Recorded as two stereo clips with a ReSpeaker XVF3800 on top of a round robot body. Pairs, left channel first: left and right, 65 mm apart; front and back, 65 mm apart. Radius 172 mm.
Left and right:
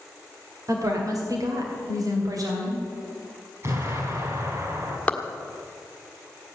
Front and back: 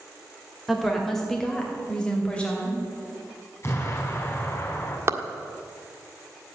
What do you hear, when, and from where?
0.7 s a woman speaking: 90° right, 2.5 m; by 2.8 s 70° right, 3.5 m
3.6 s an explosion: 50° right, 4 m
5.1 s a clap: 155° left, 1.7 m